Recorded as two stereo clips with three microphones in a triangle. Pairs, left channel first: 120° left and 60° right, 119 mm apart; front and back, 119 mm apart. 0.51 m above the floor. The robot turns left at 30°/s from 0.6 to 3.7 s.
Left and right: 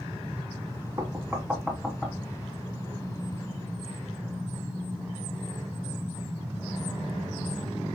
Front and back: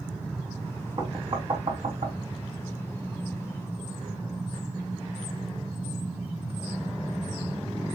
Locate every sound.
1.0 s knocking: 125° right, 2.5 m; by 2.2 s 160° right, 2.5 m